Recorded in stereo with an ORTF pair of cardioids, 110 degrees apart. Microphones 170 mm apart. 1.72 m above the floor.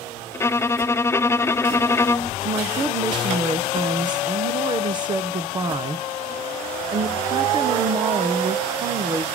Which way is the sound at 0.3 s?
15° left.